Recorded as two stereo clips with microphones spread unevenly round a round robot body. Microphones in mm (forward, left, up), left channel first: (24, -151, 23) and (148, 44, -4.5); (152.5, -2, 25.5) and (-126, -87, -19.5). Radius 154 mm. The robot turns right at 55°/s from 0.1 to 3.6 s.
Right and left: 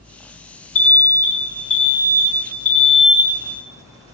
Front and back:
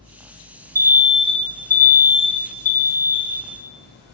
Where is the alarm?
130° right, 0.6 m; by 4.1 s 25° left, 0.6 m.